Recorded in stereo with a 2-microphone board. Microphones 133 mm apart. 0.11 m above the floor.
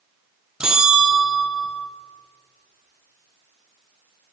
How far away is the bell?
About 0.8 m.